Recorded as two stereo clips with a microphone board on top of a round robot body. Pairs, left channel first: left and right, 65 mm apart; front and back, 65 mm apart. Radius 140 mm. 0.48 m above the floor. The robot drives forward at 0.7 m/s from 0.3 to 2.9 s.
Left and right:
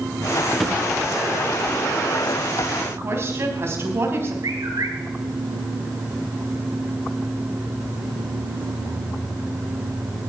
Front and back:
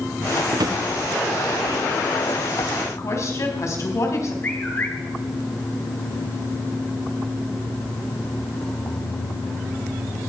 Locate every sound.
0.5 s a drawer: straight behind, 1.1 m
2.9 s a woman speaking: 40° right, 3.5 m
4.4 s a bird: 60° right, 2.5 m